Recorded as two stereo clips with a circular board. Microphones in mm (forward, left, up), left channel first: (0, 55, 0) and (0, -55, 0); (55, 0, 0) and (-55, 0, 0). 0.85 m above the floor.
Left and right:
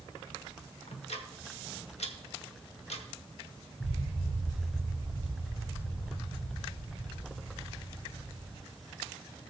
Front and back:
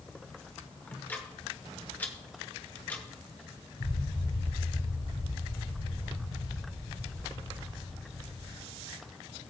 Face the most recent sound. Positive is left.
turn(degrees=40)